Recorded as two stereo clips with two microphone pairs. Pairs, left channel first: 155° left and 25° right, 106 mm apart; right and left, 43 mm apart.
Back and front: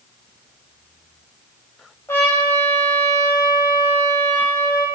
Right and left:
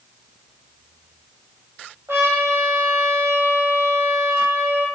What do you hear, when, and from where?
2.1 s a trumpet: 85° left, 1.0 m